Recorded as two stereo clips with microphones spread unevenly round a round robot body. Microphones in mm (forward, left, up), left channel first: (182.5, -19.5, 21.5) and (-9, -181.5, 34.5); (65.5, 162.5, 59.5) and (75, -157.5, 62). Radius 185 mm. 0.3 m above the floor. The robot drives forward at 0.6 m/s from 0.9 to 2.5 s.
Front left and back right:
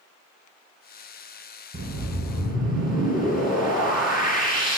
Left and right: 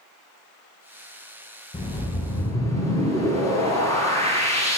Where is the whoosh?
170° left, 0.7 m; by 4.8 s 175° left, 1.2 m.